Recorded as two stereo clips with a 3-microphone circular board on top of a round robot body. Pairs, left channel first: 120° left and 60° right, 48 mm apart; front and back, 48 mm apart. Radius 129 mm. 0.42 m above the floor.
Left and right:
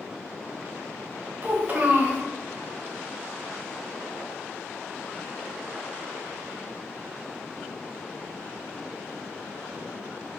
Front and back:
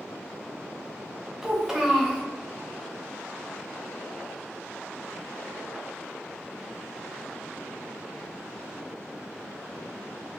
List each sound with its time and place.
1.4 s a child speaking: 105° right, 1.1 m